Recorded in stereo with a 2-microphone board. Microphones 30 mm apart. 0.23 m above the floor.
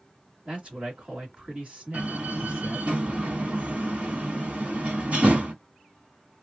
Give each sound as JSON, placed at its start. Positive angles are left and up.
{"t": 0.5, "sound": "a man speaking", "side_deg": -30, "distance_m": 1.7}
{"t": 1.9, "sound": "a door slam", "side_deg": -50, "distance_m": 1.4}